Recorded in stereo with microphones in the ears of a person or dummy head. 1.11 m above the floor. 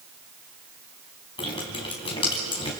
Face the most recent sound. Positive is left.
turn(degrees=25)  # may be behind; listen again after turning